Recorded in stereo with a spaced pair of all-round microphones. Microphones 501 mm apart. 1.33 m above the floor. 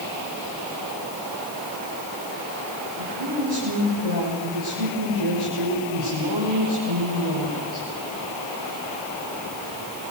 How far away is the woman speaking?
About 6.5 m.